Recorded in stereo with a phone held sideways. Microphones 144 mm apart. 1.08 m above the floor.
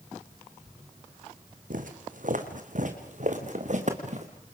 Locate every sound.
1.7 s footsteps: 65° right (ahead or behind), 3 m; by 4.3 s 55° right (ahead or behind), 4 m